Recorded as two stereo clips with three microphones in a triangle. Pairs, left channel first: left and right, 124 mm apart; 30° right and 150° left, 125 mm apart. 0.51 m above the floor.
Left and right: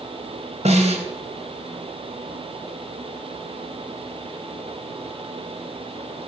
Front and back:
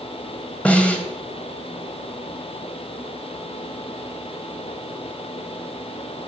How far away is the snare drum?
About 2.5 m.